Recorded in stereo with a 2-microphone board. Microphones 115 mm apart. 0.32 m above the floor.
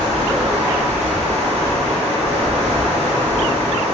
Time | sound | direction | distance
0.0 | running water | 65° right (ahead or behind) | 1.5 m